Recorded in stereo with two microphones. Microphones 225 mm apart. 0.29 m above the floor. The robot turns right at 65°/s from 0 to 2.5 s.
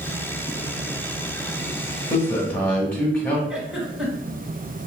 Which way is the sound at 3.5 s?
5° right (ahead or behind).